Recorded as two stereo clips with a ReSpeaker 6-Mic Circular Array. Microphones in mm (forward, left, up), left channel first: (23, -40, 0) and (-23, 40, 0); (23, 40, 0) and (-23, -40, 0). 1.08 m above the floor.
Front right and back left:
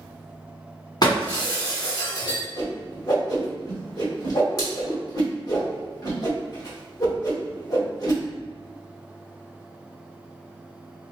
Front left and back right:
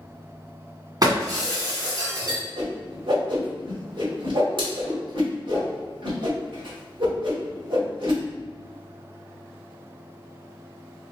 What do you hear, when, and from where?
1.0 s breaking glass: 90° right, 1.5 m
2.6 s a whoosh: 105° right, 1.7 m